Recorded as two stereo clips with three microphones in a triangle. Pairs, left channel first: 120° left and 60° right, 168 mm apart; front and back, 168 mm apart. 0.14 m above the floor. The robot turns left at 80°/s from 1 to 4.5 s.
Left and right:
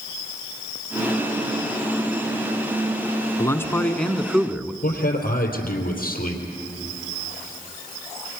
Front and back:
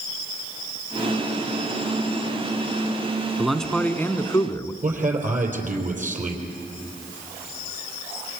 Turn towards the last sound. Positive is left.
turn(degrees=145)